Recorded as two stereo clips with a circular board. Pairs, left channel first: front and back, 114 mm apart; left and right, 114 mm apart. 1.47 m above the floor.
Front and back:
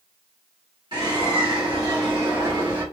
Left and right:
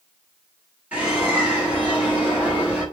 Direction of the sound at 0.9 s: 160° right.